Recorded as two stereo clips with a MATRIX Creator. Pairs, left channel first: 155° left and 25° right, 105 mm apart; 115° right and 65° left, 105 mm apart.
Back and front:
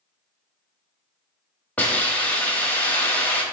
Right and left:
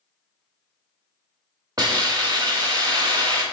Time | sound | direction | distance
1.8 | a hiss | 90° left | 1.0 m